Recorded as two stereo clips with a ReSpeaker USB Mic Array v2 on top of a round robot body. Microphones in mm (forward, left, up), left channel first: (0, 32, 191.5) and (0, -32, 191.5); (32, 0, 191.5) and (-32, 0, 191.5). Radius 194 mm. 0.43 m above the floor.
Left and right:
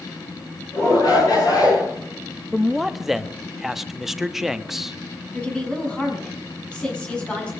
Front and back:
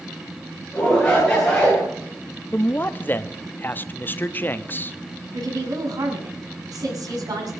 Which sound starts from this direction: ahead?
A man speaking, at 2.5 s.